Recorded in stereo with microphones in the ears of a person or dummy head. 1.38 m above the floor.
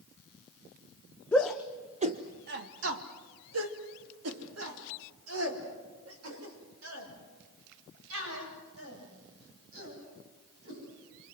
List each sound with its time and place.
1.3 s a shout: 10° left (ahead or behind), 1.1 m; by 10.8 s 80° right, 10.5 m